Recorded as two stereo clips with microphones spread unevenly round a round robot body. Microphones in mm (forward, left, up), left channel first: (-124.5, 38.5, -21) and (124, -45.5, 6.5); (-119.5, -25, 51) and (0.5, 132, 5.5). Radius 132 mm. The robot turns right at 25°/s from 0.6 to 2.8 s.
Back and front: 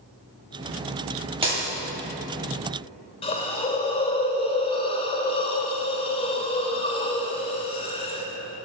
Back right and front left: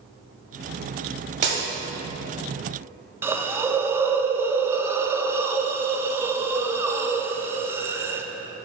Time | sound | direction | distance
1.4 | breaking glass | 55° left | 1.5 m
3.2 | a hiss | 110° left | 0.5 m